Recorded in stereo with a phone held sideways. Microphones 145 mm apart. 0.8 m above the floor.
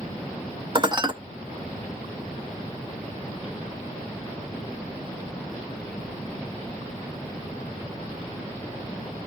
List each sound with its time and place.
0.8 s dishes clattering: 35° right (ahead or behind), 0.5 m